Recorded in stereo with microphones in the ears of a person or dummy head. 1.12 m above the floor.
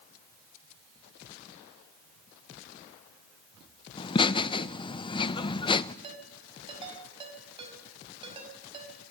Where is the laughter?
25° left (ahead or behind), 0.6 m.